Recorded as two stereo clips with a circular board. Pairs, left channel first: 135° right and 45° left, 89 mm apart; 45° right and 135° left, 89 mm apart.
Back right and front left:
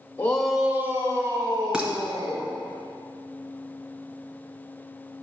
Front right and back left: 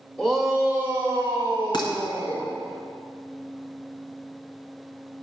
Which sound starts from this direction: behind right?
A shout, at 0.2 s.